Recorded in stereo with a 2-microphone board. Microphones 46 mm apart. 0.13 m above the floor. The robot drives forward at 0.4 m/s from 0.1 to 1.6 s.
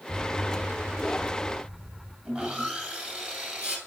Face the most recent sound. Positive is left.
turn(degrees=-25)  # may be behind; listen again after turning